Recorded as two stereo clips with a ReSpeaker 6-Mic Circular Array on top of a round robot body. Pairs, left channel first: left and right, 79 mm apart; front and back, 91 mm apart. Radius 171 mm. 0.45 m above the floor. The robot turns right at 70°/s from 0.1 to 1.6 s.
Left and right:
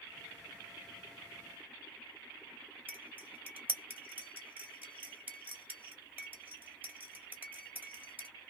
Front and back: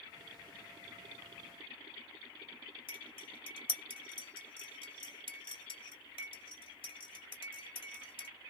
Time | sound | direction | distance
2.9 | cutlery clinking | 20° right | 1.7 m